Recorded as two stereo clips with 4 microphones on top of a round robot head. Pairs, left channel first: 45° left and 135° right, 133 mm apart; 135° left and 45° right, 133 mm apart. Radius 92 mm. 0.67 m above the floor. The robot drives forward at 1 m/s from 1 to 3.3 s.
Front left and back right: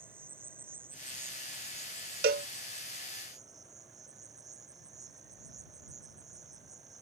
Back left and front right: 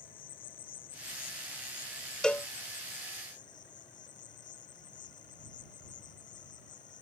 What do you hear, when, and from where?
0.0 s an insect: 150° left; by 7.0 s 160° left
2.2 s a cowbell: 140° right; by 2.5 s 155° right